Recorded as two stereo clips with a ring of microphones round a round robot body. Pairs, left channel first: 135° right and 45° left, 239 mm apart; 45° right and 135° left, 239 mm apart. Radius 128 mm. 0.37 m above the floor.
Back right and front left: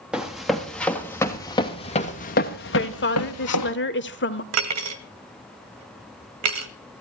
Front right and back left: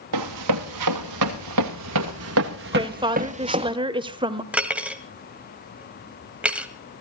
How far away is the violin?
No violin in this recording.